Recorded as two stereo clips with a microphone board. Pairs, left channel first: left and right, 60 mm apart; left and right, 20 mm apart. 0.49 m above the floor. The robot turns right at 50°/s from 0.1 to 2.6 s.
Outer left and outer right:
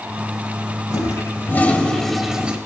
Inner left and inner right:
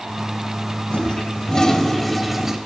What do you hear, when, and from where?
0.9 s a toilet flushing: 115° left, 0.8 m; by 2.6 s 160° right, 0.8 m